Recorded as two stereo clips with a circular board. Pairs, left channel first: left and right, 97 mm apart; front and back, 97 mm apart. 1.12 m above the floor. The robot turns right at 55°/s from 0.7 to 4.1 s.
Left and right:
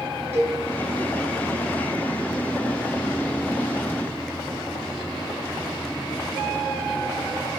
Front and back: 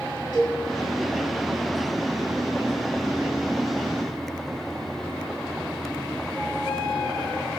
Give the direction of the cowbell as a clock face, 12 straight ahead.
1 o'clock.